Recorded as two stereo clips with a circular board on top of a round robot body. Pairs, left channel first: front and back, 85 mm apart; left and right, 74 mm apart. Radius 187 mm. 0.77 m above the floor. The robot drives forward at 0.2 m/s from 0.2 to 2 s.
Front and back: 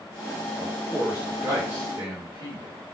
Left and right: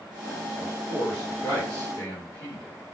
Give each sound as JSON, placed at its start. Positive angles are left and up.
{"t": 0.6, "sound": "a man speaking", "azimuth_deg": 105, "distance_m": 1.2}